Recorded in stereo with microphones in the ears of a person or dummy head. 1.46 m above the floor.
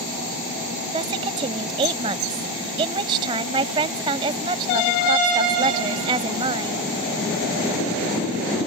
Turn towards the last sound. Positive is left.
turn(degrees=-30)  # may be behind; listen again after turning